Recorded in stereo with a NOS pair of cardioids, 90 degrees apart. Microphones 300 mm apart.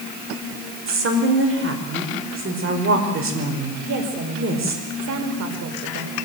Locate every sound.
0.9 s a woman speaking: 45° right, 5 m
3.9 s a woman speaking: 65° right, 4 m